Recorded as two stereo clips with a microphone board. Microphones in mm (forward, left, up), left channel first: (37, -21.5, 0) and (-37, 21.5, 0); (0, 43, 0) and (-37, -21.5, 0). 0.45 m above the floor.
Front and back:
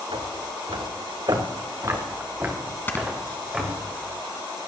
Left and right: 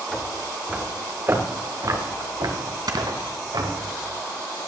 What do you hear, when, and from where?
0.1 s footsteps: 145° left, 2.5 m; by 3.9 s 125° right, 4.5 m
2.9 s snoring: 95° right, 1.4 m